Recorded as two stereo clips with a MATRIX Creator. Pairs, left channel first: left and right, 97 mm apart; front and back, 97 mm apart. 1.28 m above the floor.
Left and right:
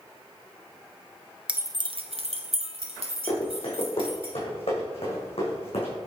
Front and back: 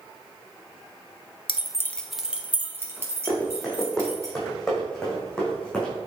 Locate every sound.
1.5 s keys jangling: 10° right, 0.6 m; by 4.3 s 120° right, 3.5 m
3.3 s running footsteps: 90° left, 3.5 m; by 5.9 s 80° left, 4.5 m